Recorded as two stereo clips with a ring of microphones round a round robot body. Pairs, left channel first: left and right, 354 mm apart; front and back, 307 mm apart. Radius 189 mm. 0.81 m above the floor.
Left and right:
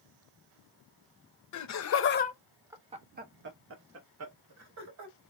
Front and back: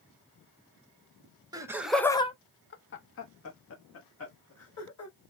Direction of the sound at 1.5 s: 105° left.